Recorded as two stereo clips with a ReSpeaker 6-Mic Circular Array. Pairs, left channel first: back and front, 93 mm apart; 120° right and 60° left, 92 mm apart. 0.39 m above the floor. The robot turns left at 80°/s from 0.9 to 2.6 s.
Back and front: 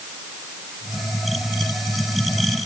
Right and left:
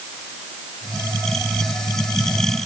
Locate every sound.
Only background noise.